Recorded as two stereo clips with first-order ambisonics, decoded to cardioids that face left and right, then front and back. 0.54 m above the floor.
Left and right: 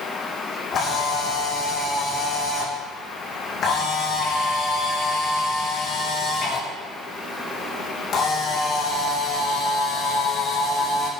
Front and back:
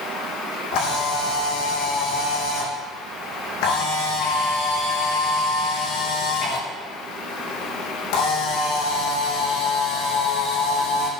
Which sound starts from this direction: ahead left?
A camera shutter, at 0.7 s.